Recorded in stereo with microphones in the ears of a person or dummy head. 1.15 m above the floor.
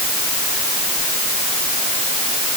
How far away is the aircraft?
No aircraft in this recording.